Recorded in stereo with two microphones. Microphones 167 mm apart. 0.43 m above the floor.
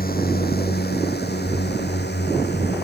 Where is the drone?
65° left (ahead or behind); by 2.8 s 80° left.